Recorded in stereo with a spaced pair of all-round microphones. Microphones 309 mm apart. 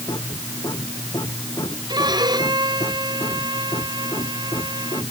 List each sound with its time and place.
0.0 s a machine running: 15° left (ahead or behind)
1.9 s a violin: 15° right (ahead or behind)